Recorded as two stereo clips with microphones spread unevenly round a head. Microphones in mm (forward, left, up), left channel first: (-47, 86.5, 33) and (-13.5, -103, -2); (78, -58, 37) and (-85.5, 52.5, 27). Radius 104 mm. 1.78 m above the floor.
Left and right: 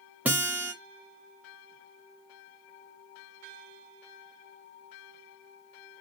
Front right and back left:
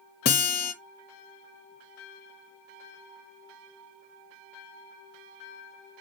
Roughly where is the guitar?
Ahead.